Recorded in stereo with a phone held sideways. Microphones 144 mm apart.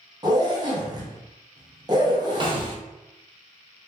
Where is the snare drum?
35° right (ahead or behind), 0.5 m.